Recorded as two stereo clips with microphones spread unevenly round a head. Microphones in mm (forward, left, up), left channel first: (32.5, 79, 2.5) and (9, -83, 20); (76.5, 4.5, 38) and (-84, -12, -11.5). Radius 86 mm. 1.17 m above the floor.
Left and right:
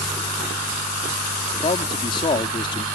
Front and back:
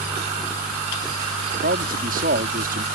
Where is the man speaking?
145° left.